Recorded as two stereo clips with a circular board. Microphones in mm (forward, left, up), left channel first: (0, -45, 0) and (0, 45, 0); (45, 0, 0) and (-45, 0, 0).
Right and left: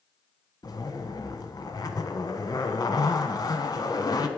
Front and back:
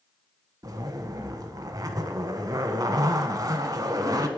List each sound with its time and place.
0.6 s a zipper: 130° right, 0.8 m